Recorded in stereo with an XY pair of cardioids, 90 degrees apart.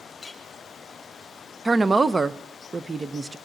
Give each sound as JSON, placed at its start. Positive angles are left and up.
{"t": 0.2, "sound": "a clink", "azimuth_deg": 20, "distance_m": 1.6}
{"t": 1.6, "sound": "a woman speaking", "azimuth_deg": -30, "distance_m": 0.6}